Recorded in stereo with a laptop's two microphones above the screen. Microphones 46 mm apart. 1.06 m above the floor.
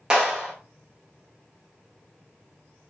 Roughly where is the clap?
Centre.